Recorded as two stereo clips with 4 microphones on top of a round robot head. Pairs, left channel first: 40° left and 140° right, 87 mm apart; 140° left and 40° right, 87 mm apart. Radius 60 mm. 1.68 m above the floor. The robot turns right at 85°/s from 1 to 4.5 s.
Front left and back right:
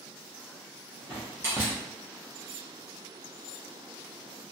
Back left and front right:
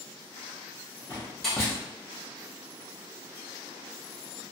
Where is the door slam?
170° right, 0.6 m; by 1.8 s 115° right, 0.6 m.